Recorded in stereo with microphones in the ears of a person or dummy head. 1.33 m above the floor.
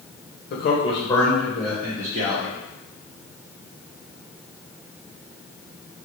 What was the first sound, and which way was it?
A man speaking, 50° left (ahead or behind).